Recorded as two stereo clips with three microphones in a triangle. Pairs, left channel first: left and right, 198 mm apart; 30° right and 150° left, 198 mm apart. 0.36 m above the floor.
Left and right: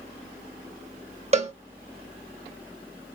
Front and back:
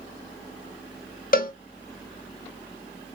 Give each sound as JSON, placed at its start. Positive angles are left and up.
{"t": 1.3, "sound": "a cowbell", "azimuth_deg": -45, "distance_m": 0.6}